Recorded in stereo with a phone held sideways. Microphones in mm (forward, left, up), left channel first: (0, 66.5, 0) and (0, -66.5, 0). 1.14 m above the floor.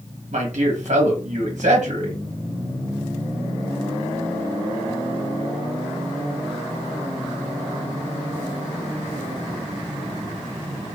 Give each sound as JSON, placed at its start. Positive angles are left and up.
{"t": 0.3, "sound": "a man speaking", "side_deg": -65, "distance_m": 1.1}